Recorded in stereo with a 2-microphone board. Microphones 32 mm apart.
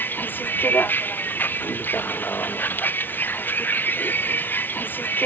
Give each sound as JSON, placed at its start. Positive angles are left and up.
{"t": 0.0, "sound": "a vehicle", "side_deg": 80}